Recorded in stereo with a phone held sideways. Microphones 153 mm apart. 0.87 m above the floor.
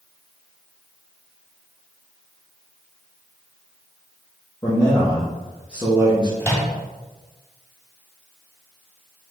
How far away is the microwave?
About 1.6 m.